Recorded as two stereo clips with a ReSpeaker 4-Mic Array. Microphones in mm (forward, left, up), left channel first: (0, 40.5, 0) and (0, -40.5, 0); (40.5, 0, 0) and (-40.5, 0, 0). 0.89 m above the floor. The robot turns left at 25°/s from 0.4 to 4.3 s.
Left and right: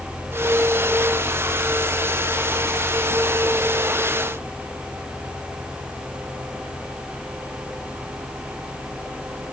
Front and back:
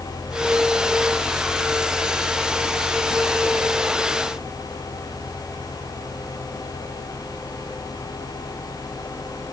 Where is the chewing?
I don't hear chewing.